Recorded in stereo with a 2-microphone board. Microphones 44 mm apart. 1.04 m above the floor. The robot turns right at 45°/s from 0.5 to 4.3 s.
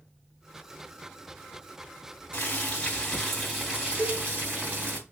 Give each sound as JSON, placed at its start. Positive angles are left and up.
{"t": 2.3, "sound": "boiling", "azimuth_deg": 135, "distance_m": 3.0}
{"t": 4.0, "sound": "a cowbell", "side_deg": -25, "distance_m": 1.9}